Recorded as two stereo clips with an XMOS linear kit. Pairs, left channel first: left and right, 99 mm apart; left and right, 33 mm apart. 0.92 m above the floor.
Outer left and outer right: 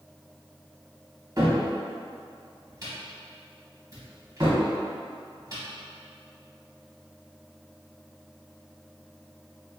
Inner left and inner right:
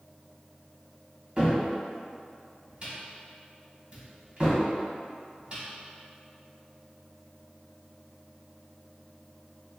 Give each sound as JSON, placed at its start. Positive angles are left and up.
{"t": 1.4, "sound": "a cupboard door", "side_deg": -35, "distance_m": 1.4}